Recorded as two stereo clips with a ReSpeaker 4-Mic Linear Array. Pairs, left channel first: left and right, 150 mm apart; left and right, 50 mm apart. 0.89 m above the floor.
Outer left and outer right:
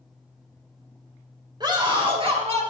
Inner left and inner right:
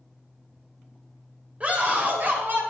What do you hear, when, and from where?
1.6 s a scream: 30° right (ahead or behind), 3 m; by 2.6 s 45° right (ahead or behind), 3 m